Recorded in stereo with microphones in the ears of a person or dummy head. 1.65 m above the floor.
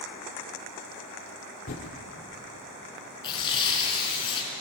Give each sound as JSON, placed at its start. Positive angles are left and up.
{"t": 1.7, "sound": "typing on a keyboard", "side_deg": 45, "distance_m": 1.6}
{"t": 3.2, "sound": "tearing paper", "side_deg": 30, "distance_m": 5.5}